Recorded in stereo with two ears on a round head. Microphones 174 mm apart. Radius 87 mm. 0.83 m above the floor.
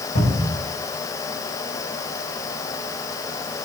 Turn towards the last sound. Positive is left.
turn(degrees=50)  # may be behind; listen again after turning